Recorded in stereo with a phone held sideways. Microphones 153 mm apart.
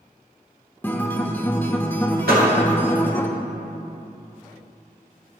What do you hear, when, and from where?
0.8 s a guitar: 15° left (ahead or behind), 0.7 m
2.3 s a door slam: 80° right, 1.9 m